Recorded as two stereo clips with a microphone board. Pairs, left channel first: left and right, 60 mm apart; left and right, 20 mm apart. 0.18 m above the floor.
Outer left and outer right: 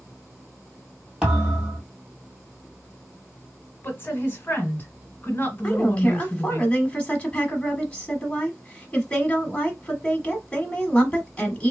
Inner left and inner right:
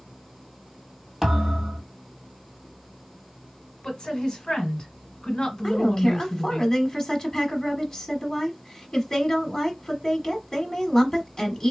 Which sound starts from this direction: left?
A woman speaking, at 3.8 s.